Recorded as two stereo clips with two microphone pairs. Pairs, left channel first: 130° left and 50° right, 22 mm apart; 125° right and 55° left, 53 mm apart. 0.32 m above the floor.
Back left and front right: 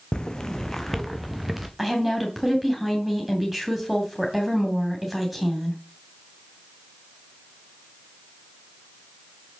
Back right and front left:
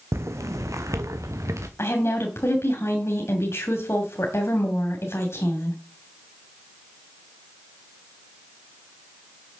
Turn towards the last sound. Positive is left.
turn(degrees=-135)